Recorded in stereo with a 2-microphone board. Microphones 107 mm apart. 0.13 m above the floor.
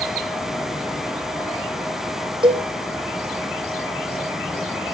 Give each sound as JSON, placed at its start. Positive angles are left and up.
{"t": 2.4, "sound": "a cowbell", "side_deg": -45, "distance_m": 2.5}